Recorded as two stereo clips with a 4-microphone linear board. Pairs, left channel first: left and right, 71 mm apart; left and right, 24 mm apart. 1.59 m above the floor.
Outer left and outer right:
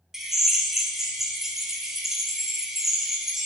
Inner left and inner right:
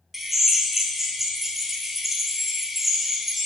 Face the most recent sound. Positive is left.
turn(degrees=-5)  # may be behind; listen again after turning